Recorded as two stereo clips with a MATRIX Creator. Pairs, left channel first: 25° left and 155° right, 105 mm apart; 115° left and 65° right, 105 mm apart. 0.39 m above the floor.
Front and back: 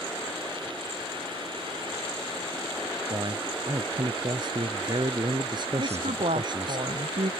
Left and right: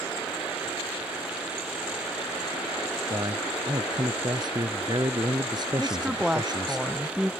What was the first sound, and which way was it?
A man speaking, 115° right.